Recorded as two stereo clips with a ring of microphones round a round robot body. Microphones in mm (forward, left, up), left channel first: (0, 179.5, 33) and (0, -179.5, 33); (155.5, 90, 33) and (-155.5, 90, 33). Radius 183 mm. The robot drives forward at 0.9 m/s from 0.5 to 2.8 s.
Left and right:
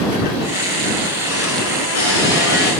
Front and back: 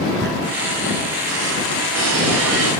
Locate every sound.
0.2 s a squeak: 125° left, 1.9 m; by 2.7 s 150° left, 3.5 m